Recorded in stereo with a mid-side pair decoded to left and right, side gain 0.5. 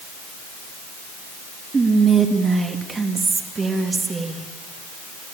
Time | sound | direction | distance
1.7 | whispering | 30° right | 2.5 m